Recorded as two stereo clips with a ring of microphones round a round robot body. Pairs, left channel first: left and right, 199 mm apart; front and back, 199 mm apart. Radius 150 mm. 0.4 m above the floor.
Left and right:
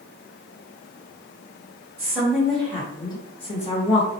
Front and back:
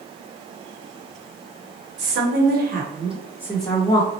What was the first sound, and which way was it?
A woman speaking, 175° right.